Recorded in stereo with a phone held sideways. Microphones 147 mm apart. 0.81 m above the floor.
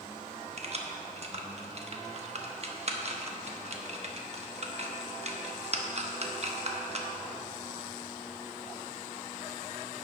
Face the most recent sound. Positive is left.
turn(degrees=-45)  # may be behind; listen again after turning